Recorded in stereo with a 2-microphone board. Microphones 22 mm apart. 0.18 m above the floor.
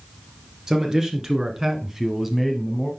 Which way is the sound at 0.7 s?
25° right (ahead or behind).